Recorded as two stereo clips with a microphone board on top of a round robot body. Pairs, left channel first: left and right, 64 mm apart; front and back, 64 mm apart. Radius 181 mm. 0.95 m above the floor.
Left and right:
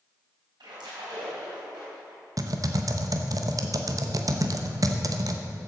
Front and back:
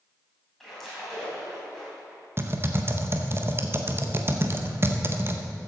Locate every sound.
0.6 s a splash: 85° right, 5 m
2.4 s typing on a keyboard: 125° right, 1.1 m